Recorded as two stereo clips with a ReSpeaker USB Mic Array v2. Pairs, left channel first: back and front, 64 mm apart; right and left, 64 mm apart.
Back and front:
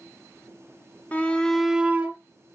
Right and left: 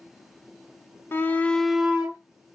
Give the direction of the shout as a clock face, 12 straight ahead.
4 o'clock.